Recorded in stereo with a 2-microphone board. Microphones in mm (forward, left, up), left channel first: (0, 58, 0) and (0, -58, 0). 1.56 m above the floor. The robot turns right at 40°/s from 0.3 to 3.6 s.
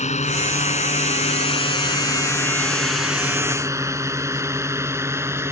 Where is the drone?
80° left; by 5.5 s 20° right (ahead or behind).